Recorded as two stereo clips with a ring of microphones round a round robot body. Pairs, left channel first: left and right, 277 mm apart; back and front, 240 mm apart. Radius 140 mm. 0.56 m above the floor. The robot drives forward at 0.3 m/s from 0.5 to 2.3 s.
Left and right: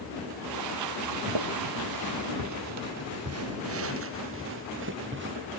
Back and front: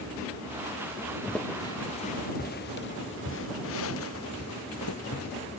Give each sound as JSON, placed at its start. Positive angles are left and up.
{"t": 1.3, "sound": "footsteps", "azimuth_deg": -90}